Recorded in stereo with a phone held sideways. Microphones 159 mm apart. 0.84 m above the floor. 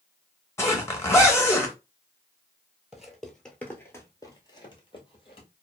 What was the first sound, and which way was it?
A zipper, 15° left (ahead or behind).